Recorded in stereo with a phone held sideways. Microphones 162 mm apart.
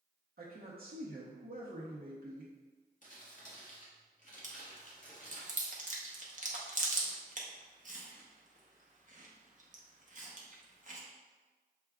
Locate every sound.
0.4 s a man speaking: 70° right (ahead or behind), 0.8 m
3.0 s crumpling: 55° left (ahead or behind), 1.2 m
4.4 s chewing: 50° right (ahead or behind), 0.8 m